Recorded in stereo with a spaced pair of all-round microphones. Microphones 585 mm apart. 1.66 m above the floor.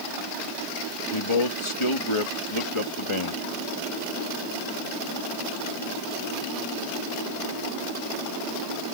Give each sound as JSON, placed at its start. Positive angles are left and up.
{"t": 1.1, "sound": "a man speaking", "side_deg": 55}